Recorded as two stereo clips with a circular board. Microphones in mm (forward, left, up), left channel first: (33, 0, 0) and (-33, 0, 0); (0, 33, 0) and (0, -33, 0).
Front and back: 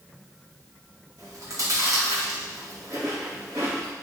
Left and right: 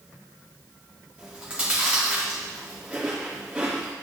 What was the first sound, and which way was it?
Chewing, 160° right.